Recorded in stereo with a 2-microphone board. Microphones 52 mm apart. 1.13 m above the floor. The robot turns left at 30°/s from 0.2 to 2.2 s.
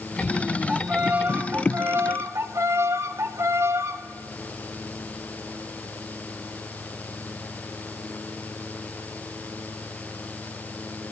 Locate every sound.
0.7 s a violin: 25° right, 1.3 m; by 4.0 s 70° right, 1.3 m